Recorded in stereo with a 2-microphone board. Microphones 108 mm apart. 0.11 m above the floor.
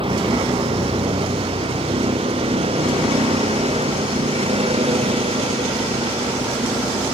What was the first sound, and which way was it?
A vehicle, 55° right (ahead or behind).